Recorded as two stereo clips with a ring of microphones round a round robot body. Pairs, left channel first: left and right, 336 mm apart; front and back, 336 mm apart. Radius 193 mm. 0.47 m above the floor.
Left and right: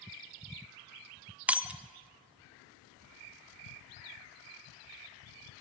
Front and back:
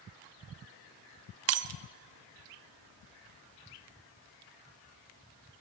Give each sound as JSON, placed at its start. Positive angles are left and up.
{"t": 1.5, "sound": "breaking glass", "azimuth_deg": -175, "distance_m": 0.6}